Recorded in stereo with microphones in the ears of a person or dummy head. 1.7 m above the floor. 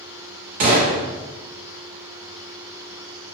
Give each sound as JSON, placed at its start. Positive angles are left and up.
{"t": 0.6, "sound": "a gunshot", "side_deg": -25, "distance_m": 1.0}